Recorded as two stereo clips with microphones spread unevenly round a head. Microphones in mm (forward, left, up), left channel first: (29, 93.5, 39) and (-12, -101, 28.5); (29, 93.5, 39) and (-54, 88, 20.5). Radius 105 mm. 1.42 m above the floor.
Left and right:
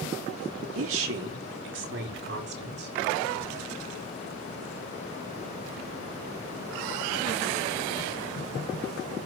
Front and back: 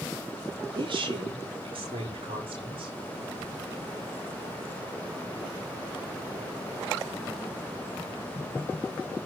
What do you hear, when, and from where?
0.8 s a woman speaking: 120° right, 3 m; by 3.0 s 145° right, 5.5 m